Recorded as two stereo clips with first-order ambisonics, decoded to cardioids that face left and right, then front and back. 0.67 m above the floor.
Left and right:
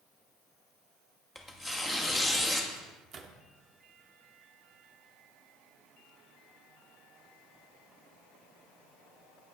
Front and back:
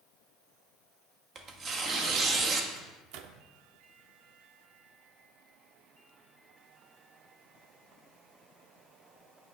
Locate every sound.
1.4 s tearing paper: 170° left, 1.1 m
2.7 s a microwave: 150° right, 0.9 m